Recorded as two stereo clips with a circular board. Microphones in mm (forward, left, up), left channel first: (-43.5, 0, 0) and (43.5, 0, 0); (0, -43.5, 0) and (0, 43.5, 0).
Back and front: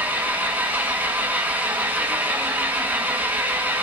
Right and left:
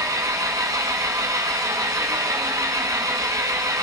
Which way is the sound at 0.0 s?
60° left.